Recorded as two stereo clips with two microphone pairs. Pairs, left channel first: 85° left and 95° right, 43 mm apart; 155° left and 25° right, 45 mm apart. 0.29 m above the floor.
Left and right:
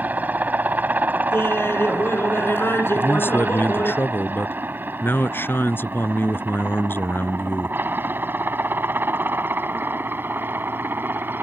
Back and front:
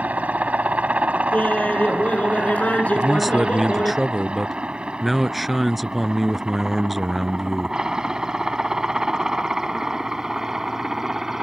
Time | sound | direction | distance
0.0 | a helicopter | 65° right | ?
1.3 | laughter | 100° left | ?
3.0 | a man speaking | 60° left | ?